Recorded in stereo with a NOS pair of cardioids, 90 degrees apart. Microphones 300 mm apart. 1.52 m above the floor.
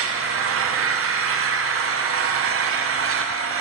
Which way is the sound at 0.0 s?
55° right.